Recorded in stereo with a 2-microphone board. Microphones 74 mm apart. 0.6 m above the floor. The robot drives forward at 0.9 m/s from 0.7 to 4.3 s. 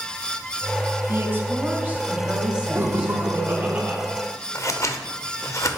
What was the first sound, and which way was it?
A woman speaking, 35° right (ahead or behind).